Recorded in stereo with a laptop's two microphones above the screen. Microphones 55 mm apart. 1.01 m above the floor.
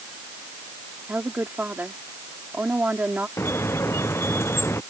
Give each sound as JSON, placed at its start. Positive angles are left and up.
{"t": 1.1, "sound": "a woman speaking", "side_deg": -35}
{"t": 3.4, "sound": "a squeak", "side_deg": 50}